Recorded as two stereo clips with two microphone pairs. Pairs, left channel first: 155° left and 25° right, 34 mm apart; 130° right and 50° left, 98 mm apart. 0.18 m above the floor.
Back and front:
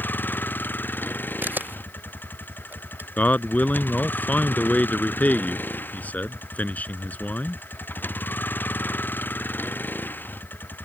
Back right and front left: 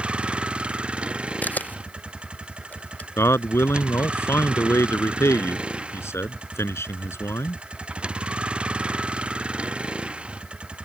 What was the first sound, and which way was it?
A vehicle, 130° left.